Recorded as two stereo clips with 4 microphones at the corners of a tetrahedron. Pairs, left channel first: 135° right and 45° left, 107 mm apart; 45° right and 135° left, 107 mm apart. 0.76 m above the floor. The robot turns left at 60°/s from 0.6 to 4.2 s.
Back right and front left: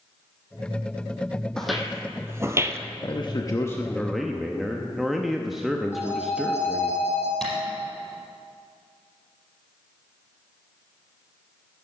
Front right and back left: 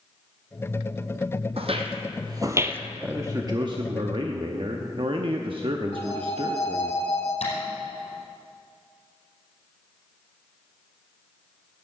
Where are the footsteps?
140° left, 1.5 m; by 2.8 s 80° left, 0.8 m.